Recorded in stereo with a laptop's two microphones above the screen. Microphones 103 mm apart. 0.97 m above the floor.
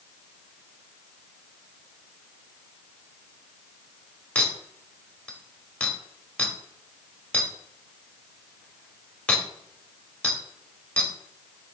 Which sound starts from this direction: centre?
A clink, at 4.3 s.